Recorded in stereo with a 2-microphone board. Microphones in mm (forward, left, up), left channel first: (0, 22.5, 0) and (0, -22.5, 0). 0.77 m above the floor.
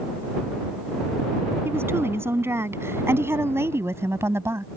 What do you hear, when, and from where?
1.6 s a woman speaking: 70° right (ahead or behind); by 4.7 s 80° right